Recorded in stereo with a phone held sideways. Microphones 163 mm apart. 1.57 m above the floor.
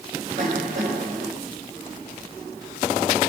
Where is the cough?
50° right (ahead or behind), 7 m.